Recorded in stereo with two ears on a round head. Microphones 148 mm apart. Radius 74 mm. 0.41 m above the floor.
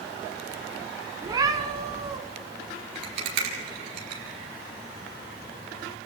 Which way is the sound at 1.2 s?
25° right (ahead or behind).